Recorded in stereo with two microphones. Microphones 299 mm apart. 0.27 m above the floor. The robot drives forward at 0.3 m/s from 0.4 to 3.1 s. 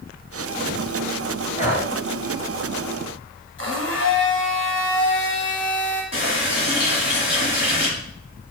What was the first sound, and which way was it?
Breathing, 25° left (ahead or behind).